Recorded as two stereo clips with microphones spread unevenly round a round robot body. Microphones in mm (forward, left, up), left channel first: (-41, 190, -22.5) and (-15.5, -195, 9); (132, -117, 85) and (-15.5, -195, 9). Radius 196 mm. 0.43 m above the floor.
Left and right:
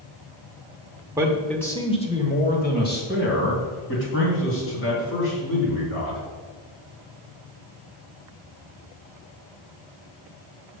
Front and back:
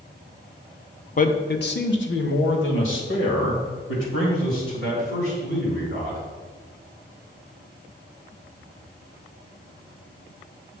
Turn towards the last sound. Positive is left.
turn(degrees=35)